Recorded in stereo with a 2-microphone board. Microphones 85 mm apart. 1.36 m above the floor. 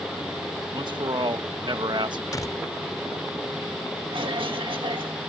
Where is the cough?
80° right.